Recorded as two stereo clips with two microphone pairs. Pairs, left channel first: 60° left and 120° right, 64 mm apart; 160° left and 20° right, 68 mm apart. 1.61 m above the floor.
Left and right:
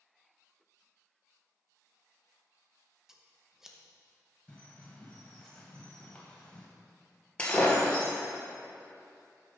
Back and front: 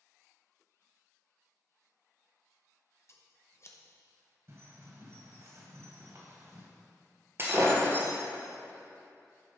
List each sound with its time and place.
3.1 s scissors: 155° left, 0.9 m
4.5 s a bird: straight ahead, 1.9 m
7.4 s breaking glass: 5° left, 2.0 m